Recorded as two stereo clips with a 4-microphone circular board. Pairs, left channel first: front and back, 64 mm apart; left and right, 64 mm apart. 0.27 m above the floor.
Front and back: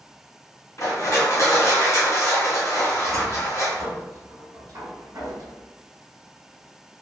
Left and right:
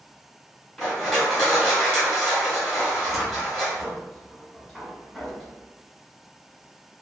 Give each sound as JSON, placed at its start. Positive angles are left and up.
{"t": 0.8, "sound": "crushing", "azimuth_deg": 5, "distance_m": 1.5}
{"t": 2.9, "sound": "a cupboard door", "azimuth_deg": 175, "distance_m": 1.1}